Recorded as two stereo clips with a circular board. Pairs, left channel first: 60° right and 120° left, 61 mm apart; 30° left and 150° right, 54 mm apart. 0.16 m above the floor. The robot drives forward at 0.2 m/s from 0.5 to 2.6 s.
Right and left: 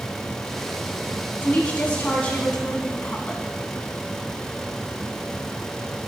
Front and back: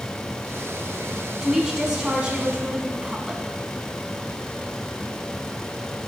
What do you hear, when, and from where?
1.4 s a woman speaking: 85° right, 1.3 m; by 3.4 s 110° right, 1.3 m